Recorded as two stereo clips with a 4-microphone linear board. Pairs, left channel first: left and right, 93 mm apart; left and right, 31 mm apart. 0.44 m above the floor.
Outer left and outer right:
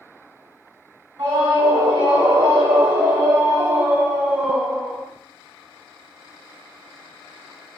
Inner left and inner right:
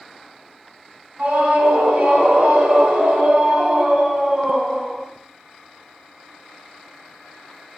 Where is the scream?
70° right (ahead or behind), 3.5 m; by 5.0 s 10° left (ahead or behind), 1.8 m.